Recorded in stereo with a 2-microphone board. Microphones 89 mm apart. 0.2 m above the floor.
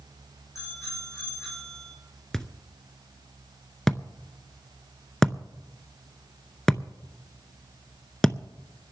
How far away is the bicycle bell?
About 8.5 m.